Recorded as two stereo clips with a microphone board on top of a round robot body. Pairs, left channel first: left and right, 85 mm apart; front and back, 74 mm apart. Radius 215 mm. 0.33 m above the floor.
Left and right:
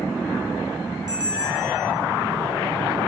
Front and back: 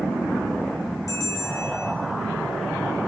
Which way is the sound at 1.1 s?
45° right.